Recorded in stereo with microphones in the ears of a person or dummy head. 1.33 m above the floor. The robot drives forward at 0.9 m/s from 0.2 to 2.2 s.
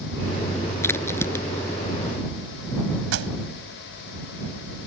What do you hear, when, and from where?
0.8 s a crack: 15° left (ahead or behind)
3.1 s a pop: 75° right (ahead or behind)